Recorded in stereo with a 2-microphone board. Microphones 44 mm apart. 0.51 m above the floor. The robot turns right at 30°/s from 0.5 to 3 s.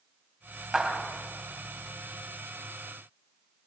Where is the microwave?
I don't hear a microwave.